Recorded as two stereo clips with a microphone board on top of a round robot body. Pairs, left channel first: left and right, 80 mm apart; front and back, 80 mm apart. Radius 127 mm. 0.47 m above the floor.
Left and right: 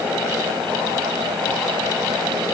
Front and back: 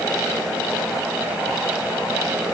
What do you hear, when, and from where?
Only background noise.